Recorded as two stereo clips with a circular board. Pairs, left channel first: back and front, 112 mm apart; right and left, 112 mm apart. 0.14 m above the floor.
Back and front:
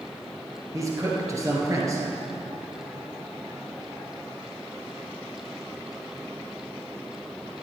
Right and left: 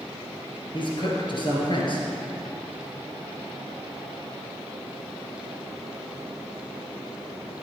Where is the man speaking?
60° right, 2.5 m.